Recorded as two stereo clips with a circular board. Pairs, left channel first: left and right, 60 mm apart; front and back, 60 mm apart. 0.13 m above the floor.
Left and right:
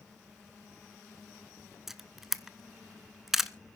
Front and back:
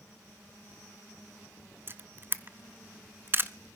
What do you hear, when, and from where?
1.9 s a camera shutter: 170° right, 0.6 m